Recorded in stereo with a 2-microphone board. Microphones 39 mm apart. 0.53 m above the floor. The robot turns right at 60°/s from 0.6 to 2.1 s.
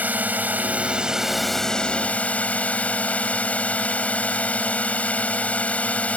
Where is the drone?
50° right; by 6.2 s 40° left.